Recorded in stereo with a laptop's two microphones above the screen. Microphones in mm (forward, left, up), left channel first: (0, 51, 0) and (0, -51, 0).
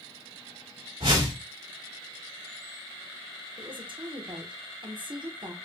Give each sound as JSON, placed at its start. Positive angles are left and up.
{"t": 1.0, "sound": "a whoosh", "side_deg": -60, "distance_m": 2.0}
{"t": 3.6, "sound": "a woman speaking", "side_deg": -50, "distance_m": 0.9}